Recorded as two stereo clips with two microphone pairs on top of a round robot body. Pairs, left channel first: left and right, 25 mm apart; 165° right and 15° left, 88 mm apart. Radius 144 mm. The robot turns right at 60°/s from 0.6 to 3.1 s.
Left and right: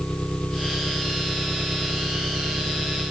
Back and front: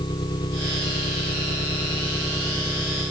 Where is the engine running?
155° left; by 3.1 s 55° right.